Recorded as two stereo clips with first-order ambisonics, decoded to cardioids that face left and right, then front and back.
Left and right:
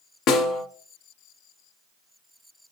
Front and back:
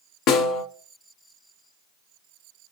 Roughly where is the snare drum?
Ahead left.